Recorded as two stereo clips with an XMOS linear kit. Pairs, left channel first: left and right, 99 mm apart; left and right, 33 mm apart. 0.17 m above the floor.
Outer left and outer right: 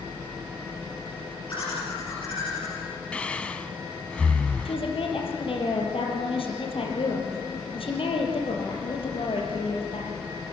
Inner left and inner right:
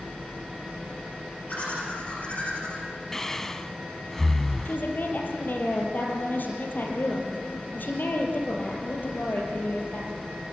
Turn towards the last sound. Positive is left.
turn(degrees=65)  # may be behind; listen again after turning